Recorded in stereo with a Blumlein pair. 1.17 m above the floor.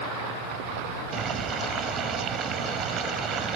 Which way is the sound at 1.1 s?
30° right.